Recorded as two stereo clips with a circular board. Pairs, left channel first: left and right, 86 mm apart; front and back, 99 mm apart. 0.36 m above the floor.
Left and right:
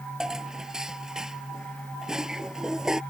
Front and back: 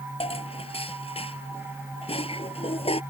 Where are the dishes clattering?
5° right.